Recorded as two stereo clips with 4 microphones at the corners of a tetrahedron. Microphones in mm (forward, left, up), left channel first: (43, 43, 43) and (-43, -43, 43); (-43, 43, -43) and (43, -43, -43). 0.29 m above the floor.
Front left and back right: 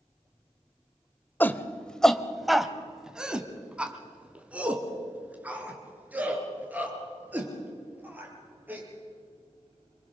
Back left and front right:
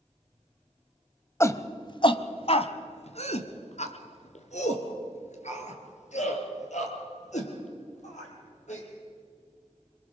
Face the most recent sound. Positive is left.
turn(degrees=150)